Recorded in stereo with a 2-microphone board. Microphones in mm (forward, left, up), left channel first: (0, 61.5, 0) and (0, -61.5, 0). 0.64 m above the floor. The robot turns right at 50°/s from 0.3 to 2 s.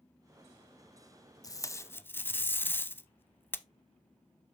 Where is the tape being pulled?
30° left (ahead or behind), 0.5 m; by 3.6 s 15° left (ahead or behind), 0.5 m.